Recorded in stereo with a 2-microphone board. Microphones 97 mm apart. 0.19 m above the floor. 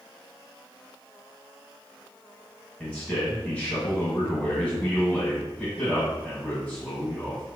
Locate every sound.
2.8 s a man speaking: 10° left (ahead or behind), 1.7 m